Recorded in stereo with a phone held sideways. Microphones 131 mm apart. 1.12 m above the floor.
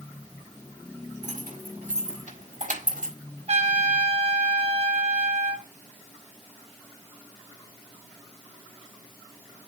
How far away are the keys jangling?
About 4.5 m.